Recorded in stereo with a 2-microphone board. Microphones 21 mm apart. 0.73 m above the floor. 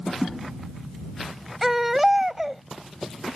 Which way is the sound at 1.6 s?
15° right (ahead or behind).